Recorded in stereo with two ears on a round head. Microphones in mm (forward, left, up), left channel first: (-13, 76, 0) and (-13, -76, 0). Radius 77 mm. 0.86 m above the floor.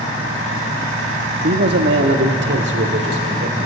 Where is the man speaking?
60° right (ahead or behind), 1.2 m.